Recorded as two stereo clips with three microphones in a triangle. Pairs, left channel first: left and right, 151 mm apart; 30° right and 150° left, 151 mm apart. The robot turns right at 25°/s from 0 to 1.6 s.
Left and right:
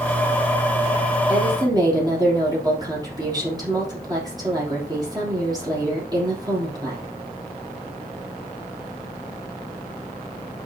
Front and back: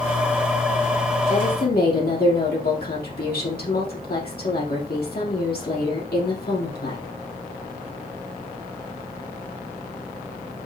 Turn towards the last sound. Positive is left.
turn(degrees=-25)